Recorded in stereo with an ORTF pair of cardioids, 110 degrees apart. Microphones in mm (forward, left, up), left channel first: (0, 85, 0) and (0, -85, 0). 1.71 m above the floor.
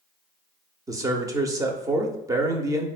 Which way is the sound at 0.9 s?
20° right.